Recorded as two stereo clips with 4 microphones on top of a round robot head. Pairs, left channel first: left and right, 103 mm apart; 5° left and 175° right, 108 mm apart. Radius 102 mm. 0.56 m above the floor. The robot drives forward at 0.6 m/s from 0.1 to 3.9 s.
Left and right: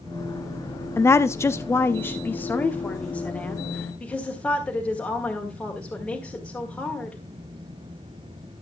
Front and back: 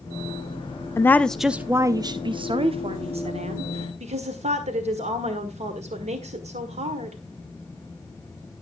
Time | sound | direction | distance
1.0 | a woman speaking | 45° left | 0.7 m